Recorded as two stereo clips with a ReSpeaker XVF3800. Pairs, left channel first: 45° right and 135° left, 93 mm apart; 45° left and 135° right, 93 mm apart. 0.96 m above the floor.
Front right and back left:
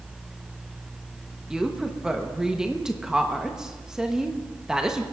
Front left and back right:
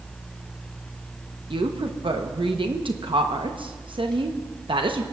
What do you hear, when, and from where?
1.5 s a woman speaking: 145° right, 0.8 m